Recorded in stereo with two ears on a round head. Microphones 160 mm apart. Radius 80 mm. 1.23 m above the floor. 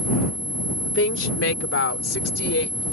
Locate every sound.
0.8 s a woman speaking: 70° left (ahead or behind); by 2.8 s 80° left